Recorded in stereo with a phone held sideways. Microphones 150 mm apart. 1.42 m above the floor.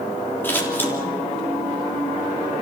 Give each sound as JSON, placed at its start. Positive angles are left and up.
{"t": 0.4, "sound": "scissors", "side_deg": 15, "distance_m": 3.5}